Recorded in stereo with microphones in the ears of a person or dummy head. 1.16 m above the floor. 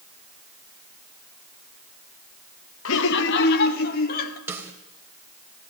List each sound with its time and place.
2.9 s laughter: 70° left (ahead or behind), 1.3 m; by 4.4 s 50° left (ahead or behind), 3.5 m
4.5 s a snare drum: 10° right (ahead or behind), 3 m